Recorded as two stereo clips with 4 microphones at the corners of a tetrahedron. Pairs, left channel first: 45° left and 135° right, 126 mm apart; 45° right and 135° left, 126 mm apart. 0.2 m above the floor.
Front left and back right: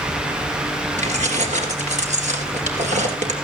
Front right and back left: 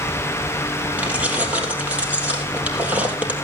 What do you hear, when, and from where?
1.0 s keys jangling: 145° right, 3 m